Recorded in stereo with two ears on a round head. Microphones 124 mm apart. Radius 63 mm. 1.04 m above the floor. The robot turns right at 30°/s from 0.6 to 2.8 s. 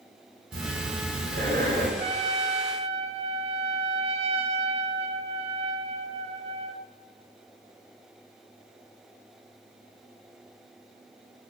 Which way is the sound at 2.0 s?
45° right (ahead or behind).